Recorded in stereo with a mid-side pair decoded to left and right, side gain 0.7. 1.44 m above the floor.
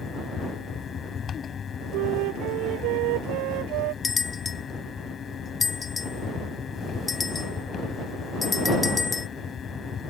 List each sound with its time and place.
0.0 s a fan: 35° left
1.9 s a flute: 70° right
4.0 s a bell: 25° left